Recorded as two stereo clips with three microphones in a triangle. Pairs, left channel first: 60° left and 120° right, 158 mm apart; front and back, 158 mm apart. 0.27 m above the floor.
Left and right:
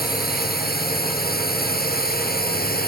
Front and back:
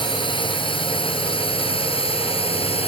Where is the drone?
60° left; by 2.9 s 50° left.